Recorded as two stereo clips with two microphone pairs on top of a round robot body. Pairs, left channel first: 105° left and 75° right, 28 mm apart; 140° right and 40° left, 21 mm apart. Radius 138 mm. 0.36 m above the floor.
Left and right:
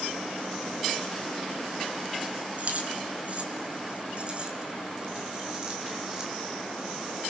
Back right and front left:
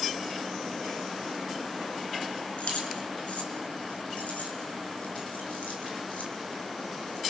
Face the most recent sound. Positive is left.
turn(degrees=-150)